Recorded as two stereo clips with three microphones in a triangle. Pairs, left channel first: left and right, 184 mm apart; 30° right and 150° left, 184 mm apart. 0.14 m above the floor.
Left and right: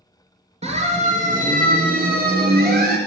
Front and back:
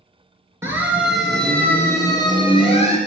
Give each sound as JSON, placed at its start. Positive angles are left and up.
{"t": 0.6, "sound": "a siren", "azimuth_deg": -135, "distance_m": 3.0}